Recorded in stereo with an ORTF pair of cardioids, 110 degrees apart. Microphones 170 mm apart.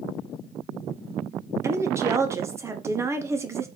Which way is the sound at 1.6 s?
15° right.